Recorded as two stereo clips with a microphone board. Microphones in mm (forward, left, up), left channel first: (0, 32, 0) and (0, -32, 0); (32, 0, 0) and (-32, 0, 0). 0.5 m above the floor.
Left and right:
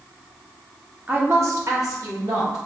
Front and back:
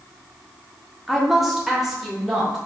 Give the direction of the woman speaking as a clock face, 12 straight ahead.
3 o'clock.